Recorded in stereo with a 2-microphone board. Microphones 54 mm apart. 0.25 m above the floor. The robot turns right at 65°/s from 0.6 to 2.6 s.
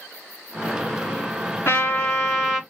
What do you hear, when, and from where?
1.6 s a trumpet: 135° left, 2 m; by 2.6 s 165° right, 2 m